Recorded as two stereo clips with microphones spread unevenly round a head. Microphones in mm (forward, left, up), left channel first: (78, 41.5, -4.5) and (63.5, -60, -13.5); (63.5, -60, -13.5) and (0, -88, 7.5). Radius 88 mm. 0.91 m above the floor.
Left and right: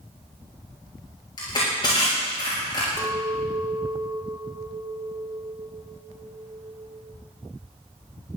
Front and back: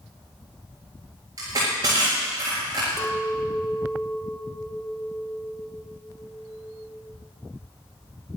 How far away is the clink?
About 1.6 m.